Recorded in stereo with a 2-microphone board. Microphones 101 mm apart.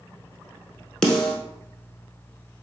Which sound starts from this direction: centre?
A snare drum, at 1.0 s.